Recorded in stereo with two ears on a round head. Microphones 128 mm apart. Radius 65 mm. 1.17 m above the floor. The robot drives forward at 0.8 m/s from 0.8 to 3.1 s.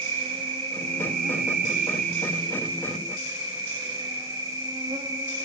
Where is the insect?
40° right (ahead or behind), 0.9 m; by 5.5 s 25° right (ahead or behind), 1.3 m.